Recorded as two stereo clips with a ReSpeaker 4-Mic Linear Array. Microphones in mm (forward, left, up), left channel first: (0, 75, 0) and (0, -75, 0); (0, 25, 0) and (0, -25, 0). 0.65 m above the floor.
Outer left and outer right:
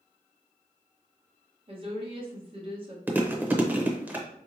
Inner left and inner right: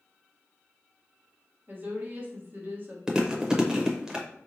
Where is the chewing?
10° right (ahead or behind), 0.7 m.